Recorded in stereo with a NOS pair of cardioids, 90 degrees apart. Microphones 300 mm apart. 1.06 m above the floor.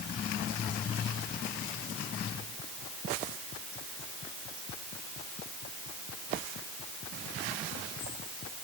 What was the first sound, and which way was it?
Only background noise.